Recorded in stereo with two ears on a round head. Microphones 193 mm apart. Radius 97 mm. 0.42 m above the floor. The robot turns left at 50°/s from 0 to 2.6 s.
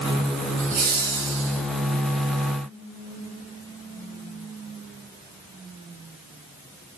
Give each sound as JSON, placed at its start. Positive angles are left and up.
{"t": 0.6, "sound": "laughter", "azimuth_deg": -30, "distance_m": 4.5}